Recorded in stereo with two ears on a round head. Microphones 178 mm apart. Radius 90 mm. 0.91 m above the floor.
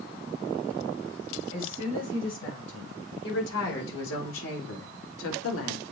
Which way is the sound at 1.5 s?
65° left (ahead or behind).